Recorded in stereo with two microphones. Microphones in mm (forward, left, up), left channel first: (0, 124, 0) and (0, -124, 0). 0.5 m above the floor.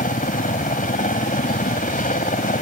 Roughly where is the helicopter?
Left.